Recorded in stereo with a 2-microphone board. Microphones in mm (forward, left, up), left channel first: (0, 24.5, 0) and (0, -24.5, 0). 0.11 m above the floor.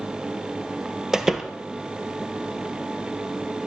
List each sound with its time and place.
1.1 s a door slam: 10° right (ahead or behind), 1.9 m